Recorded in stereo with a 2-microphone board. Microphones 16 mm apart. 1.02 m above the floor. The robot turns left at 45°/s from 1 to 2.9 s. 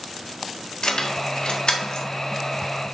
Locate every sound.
0.8 s keys jangling: 65° left (ahead or behind), 1.6 m